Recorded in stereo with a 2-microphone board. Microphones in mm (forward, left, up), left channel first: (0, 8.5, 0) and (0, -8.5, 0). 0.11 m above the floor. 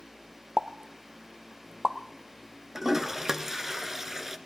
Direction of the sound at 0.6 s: 45° right (ahead or behind).